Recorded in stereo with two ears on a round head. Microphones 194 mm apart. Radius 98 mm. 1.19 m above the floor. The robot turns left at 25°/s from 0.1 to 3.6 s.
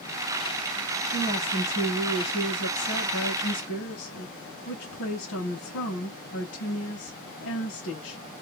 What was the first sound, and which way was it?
A woman speaking, 150° left.